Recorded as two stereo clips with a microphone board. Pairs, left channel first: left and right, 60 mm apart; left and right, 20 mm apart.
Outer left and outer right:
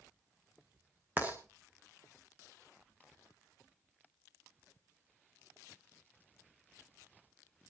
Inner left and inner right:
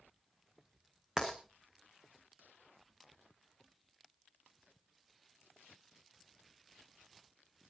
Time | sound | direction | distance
1.2 | writing | 30° right (ahead or behind) | 3 m